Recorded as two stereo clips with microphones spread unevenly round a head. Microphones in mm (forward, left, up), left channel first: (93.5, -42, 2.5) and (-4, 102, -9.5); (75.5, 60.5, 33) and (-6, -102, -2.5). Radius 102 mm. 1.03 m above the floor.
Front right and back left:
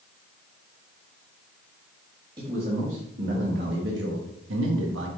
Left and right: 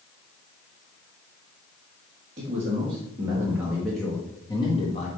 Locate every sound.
2.4 s a man speaking: 170° right, 1.7 m; by 5.1 s 125° left, 1.5 m